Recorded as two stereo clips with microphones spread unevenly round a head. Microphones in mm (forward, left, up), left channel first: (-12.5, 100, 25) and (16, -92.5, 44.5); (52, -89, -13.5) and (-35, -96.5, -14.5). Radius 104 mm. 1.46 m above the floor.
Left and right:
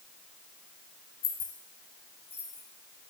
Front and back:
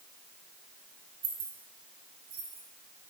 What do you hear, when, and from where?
1.2 s keys jangling: 160° left, 1.4 m; by 2.6 s straight behind, 3 m